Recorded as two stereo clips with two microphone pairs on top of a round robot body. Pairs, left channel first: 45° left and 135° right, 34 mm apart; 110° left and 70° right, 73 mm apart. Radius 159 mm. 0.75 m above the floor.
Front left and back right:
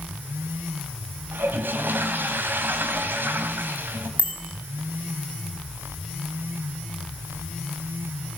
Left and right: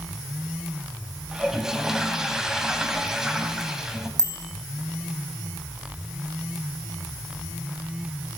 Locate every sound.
1.3 s a toilet flushing: 155° right, 2.5 m
4.2 s a bicycle bell: 100° right, 5 m